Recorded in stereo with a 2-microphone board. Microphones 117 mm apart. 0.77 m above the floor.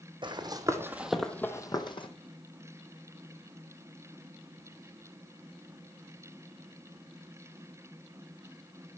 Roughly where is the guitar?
I don't hear a guitar.